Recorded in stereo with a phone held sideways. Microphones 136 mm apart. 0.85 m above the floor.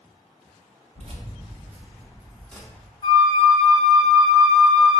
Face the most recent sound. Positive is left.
turn(degrees=30)  # may be behind; listen again after turning